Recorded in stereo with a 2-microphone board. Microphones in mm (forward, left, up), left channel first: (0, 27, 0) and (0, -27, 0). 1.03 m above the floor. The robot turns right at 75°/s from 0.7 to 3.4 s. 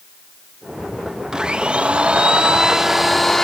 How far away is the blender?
About 0.7 m.